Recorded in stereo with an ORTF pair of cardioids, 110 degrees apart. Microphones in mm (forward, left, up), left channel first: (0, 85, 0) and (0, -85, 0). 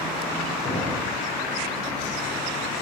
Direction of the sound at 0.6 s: 40° left.